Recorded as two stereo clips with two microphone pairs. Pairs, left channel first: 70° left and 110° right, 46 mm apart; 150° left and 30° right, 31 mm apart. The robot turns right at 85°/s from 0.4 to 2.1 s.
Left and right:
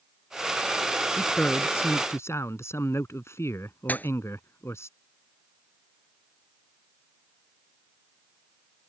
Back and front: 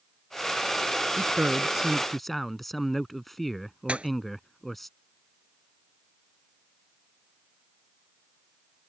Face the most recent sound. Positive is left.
turn(degrees=20)